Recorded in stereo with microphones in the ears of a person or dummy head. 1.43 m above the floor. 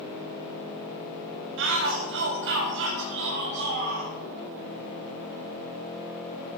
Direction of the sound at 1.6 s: 65° right (ahead or behind).